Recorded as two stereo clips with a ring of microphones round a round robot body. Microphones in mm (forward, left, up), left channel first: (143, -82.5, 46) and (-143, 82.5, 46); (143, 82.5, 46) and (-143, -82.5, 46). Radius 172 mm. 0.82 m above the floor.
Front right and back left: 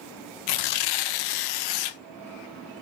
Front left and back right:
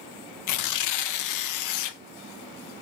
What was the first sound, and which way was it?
Tearing paper, 5° right.